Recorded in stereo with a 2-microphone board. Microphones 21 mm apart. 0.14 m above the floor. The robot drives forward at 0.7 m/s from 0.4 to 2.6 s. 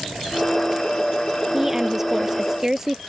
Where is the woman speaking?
20° right (ahead or behind).